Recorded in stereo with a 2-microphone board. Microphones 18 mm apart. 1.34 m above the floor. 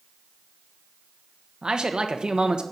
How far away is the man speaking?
About 1.2 m.